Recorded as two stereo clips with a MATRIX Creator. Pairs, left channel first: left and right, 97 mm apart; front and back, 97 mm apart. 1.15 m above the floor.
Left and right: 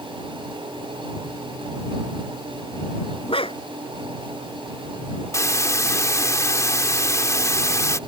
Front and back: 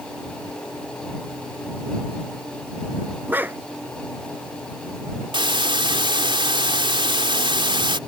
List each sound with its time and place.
3.3 s a dog barking: 110° left
5.3 s a hiss: 145° left